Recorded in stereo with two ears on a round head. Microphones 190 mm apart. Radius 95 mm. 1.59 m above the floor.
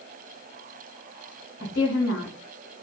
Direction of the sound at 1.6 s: 65° left (ahead or behind).